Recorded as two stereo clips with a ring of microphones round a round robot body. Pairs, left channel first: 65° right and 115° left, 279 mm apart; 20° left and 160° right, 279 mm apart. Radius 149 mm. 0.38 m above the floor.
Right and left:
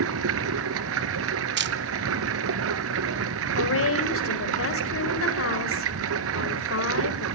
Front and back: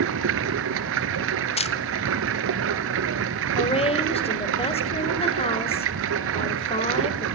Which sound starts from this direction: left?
A camera shutter, at 1.6 s.